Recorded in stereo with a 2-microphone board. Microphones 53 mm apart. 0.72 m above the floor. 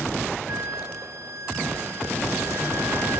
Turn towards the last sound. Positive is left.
turn(degrees=-65)  # may be behind; listen again after turning